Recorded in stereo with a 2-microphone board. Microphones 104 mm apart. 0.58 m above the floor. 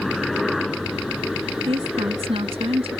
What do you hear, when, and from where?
0.0 s a helicopter: centre (ahead or behind); by 3.0 s 5° right (ahead or behind)
1.7 s a woman speaking: 60° right (ahead or behind)